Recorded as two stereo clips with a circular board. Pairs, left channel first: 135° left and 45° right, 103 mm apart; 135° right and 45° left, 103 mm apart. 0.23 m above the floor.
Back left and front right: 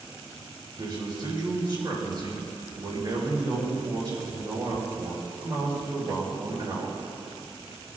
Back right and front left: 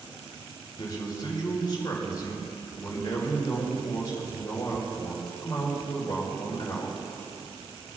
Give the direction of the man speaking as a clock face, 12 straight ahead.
3 o'clock.